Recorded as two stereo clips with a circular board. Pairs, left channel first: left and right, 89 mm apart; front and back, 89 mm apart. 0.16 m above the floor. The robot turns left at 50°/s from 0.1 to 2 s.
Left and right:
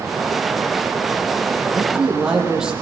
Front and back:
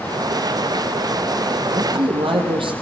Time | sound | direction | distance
1.7 | a man speaking | 155° right | 7 m